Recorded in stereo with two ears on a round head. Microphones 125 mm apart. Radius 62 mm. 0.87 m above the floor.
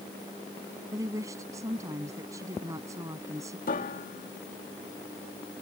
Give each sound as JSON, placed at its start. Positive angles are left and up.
{"t": 0.9, "sound": "a woman speaking", "side_deg": -20}
{"t": 3.7, "sound": "a piano", "side_deg": 65}